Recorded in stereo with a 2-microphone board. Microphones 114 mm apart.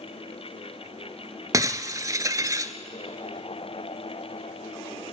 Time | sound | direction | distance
1.5 | breaking glass | 30° right (ahead or behind) | 0.9 m